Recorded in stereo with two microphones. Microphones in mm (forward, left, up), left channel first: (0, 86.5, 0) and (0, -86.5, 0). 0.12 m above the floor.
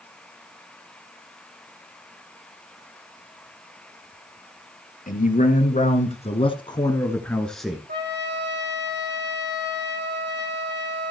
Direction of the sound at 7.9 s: 75° right (ahead or behind).